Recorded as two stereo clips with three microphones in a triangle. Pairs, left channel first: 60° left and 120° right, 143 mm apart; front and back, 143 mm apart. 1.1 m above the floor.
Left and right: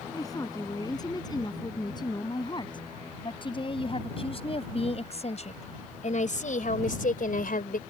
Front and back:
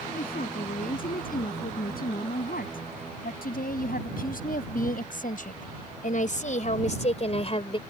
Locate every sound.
0.1 s a woman speaking: 5° right; by 7.8 s 50° left